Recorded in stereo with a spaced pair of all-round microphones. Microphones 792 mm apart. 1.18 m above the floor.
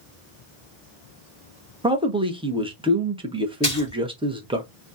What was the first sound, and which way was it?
A man speaking, 5° right (ahead or behind).